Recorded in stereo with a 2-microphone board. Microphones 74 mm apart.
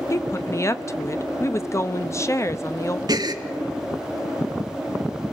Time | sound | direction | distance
0.1 | a woman speaking | 40° left (ahead or behind) | 0.9 m
3.1 | a gasp | 65° right (ahead or behind) | 1.3 m